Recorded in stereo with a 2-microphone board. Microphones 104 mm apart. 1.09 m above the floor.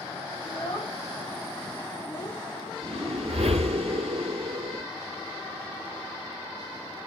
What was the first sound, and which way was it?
A child speaking, 50° left (ahead or behind).